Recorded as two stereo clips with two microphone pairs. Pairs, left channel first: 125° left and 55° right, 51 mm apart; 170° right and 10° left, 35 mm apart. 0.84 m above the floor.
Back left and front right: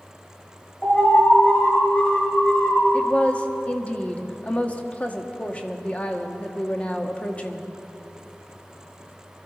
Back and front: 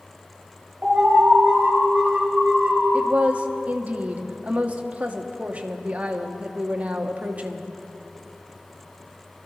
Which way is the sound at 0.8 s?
65° left.